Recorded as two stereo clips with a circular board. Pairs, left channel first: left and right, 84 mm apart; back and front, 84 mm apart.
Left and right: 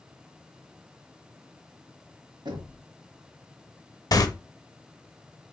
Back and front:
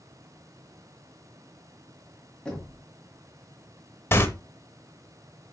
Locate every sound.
2.5 s knocking: 100° right, 1.9 m
4.1 s tearing paper: 125° left, 0.6 m